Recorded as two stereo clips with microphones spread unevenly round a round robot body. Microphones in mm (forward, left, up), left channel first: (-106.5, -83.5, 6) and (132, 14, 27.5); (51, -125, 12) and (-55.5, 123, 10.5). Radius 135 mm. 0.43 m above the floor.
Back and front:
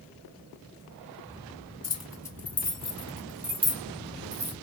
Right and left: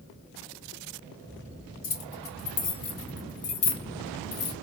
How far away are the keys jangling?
About 2.5 m.